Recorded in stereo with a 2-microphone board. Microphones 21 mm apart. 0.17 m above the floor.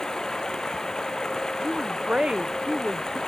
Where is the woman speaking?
45° right (ahead or behind).